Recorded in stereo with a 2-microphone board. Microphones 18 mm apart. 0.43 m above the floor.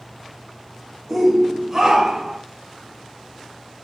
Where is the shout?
10° right (ahead or behind), 1.4 m; by 2.4 s 45° right (ahead or behind), 1.5 m.